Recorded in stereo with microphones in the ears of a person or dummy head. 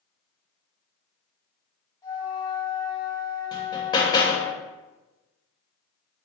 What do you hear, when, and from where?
2.0 s a flute: 20° left (ahead or behind), 1.1 m
3.5 s hammering: 25° left (ahead or behind), 0.6 m